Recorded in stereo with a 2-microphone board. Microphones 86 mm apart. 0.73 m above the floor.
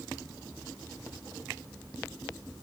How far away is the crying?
No crying in this recording.